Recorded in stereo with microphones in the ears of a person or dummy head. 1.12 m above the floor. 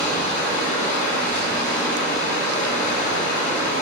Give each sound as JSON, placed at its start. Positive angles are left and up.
{"t": 0.0, "sound": "running water", "side_deg": 45, "distance_m": 1.3}